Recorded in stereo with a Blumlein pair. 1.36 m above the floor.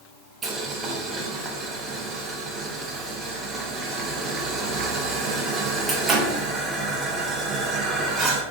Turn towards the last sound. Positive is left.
turn(degrees=-20)